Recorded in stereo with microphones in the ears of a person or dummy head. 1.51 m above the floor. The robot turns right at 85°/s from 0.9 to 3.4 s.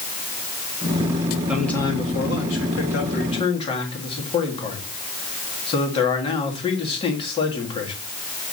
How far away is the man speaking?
About 2.0 m.